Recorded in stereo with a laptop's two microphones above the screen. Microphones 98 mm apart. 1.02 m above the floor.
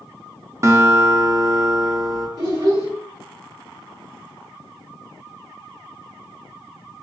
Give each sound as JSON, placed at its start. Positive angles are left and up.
{"t": 0.6, "sound": "a guitar", "side_deg": -30, "distance_m": 0.6}
{"t": 2.4, "sound": "a child speaking", "side_deg": -45, "distance_m": 1.4}